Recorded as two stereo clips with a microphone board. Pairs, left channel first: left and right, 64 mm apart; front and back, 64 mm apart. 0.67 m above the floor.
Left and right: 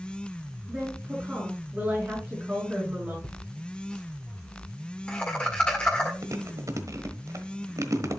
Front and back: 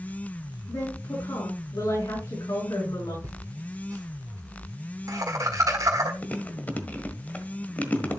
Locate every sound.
0.7 s a woman speaking: 15° right, 6 m
3.2 s laughter: 160° left, 1.6 m
6.2 s chewing: 65° right, 1.3 m